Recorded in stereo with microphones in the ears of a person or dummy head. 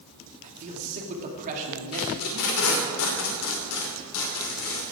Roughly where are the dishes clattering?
I don't hear dishes clattering.